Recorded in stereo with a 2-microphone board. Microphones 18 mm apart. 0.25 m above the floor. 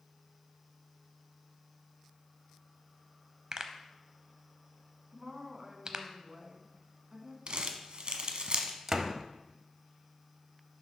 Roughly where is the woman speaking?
Right.